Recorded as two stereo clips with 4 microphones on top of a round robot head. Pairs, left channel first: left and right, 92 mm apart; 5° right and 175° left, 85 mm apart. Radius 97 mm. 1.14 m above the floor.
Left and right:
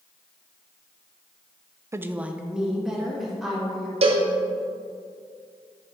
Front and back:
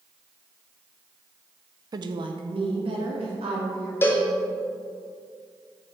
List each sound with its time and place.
1.9 s a woman speaking: 150° right, 0.5 m; by 3.9 s straight behind, 3.5 m
4.0 s a cowbell: 75° right, 0.9 m